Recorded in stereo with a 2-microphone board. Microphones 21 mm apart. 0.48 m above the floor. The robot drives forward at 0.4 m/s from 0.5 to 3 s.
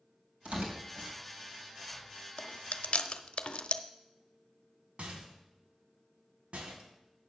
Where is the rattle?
65° right (ahead or behind), 2 m.